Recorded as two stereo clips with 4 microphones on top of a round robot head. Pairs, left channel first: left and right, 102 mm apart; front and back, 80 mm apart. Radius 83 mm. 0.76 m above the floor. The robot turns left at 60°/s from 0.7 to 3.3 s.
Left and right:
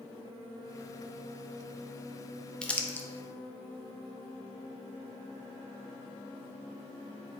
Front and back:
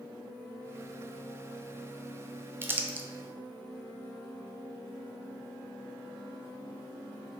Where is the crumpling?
165° left, 0.6 m; by 3.1 s 135° left, 0.6 m.